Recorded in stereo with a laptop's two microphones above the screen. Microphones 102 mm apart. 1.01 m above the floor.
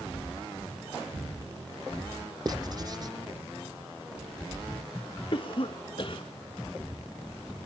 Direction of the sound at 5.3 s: 50° left (ahead or behind).